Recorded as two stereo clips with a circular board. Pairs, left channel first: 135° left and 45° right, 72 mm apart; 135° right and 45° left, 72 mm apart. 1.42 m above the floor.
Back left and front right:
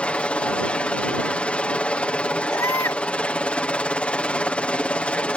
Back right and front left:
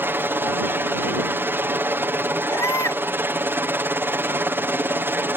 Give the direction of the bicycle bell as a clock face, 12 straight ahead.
I don't hear a bicycle bell.